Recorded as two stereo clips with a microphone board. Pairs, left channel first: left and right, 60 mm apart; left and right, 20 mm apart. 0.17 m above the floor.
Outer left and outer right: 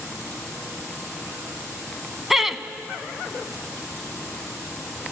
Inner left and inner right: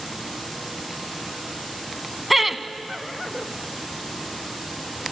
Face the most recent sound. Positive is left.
turn(degrees=-5)  # may be behind; listen again after turning